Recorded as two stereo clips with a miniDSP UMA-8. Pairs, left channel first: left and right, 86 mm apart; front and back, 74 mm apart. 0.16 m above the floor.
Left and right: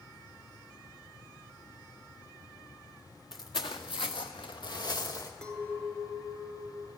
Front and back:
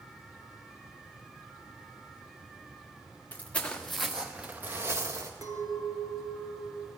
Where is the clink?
165° left, 1.4 m.